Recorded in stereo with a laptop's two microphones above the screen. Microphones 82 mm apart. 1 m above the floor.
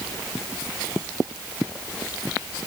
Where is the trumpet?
I don't hear a trumpet.